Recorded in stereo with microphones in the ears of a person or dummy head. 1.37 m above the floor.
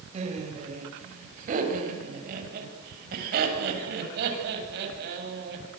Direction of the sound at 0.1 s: 40° right (ahead or behind).